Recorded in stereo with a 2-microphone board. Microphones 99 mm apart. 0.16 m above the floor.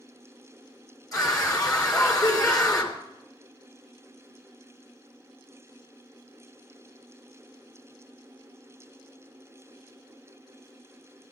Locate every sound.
1.1 s a scream: 35° left (ahead or behind), 2.5 m